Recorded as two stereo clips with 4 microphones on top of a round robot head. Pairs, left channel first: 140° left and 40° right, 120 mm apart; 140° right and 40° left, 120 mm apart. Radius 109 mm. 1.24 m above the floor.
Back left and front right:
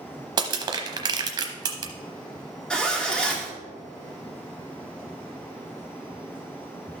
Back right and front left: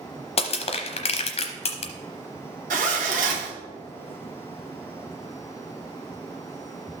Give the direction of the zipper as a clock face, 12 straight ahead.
10 o'clock.